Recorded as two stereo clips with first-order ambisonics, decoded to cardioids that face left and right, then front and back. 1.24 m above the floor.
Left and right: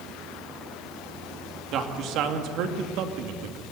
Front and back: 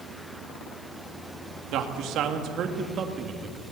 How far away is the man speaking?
About 2.5 m.